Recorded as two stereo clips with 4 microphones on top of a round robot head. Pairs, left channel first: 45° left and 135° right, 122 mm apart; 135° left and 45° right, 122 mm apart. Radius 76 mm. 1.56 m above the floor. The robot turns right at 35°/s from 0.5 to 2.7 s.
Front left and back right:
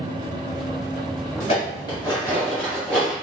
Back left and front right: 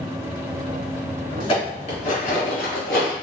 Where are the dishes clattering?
85° left, 2.5 m; by 3.1 s 130° left, 2.5 m.